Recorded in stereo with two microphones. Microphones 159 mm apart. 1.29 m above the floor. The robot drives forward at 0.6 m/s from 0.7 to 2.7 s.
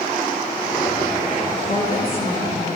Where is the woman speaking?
45° left (ahead or behind), 4 m; by 2.7 s 40° left (ahead or behind), 4.5 m.